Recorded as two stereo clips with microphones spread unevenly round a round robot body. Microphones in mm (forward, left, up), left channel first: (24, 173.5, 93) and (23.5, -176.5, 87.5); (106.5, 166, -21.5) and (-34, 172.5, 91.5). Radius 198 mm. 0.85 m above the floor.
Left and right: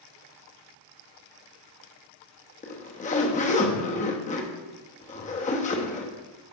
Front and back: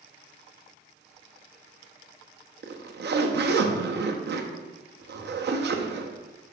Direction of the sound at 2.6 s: 160° left.